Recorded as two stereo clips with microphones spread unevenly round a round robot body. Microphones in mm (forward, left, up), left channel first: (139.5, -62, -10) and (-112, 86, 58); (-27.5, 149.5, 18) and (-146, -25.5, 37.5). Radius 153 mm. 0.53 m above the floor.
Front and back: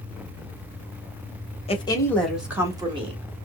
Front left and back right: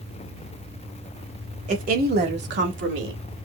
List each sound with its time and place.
1.7 s a woman speaking: 75° right, 1.2 m; by 3.2 s 135° right, 1.6 m